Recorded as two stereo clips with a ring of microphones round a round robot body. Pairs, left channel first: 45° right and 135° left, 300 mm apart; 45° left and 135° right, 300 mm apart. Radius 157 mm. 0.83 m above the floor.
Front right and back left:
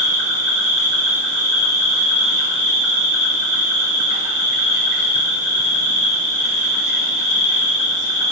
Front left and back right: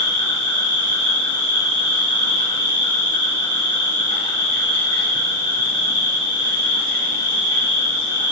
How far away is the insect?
About 5.5 m.